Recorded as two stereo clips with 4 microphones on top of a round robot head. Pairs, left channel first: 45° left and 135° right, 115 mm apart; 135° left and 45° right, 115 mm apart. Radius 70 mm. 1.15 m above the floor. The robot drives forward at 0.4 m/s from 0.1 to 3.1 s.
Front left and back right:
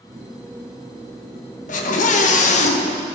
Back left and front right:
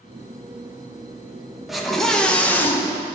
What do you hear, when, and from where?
1.7 s a scream: 45° left, 1.1 m; by 3.0 s 70° left, 0.8 m